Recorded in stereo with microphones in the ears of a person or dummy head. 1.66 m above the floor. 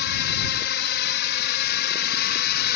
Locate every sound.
0.0 s a drone: 55° left (ahead or behind); by 2.8 s 50° left (ahead or behind)